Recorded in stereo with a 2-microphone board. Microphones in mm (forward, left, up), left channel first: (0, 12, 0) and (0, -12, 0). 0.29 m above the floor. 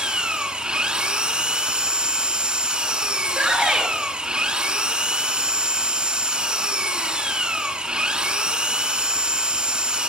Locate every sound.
0.0 s an engine running: 45° right (ahead or behind), 0.9 m
3.2 s a shout: 40° right (ahead or behind), 5.5 m